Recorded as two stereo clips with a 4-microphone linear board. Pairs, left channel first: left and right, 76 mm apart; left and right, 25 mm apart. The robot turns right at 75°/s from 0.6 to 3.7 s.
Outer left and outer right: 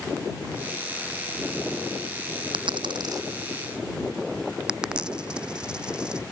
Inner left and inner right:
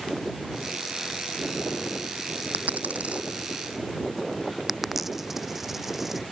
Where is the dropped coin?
80° right; by 6.2 s 10° right (ahead or behind).